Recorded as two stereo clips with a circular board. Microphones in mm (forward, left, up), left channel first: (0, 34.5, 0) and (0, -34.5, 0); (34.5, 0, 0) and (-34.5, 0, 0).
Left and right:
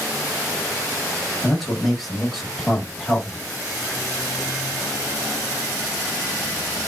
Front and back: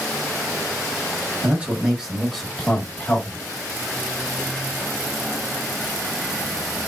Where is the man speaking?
Straight behind, 1.4 m; by 3.5 s 5° right, 1.5 m.